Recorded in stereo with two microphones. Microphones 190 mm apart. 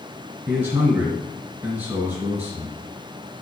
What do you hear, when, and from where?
0.5 s a man speaking: 15° right (ahead or behind), 1.5 m